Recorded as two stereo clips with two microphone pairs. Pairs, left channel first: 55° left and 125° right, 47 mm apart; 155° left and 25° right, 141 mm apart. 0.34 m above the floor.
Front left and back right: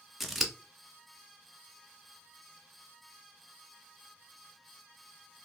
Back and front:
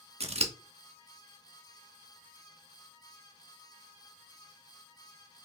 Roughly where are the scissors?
Ahead right.